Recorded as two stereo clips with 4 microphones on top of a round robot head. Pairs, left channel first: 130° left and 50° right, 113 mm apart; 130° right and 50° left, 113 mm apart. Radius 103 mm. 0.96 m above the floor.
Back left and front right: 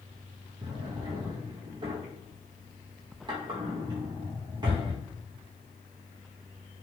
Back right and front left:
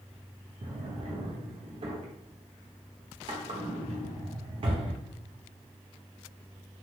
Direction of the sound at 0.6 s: 5° left.